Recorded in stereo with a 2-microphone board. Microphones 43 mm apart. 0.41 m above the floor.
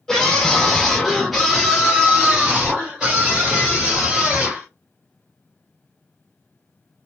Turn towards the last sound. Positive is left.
turn(degrees=-20)  # may be behind; listen again after turning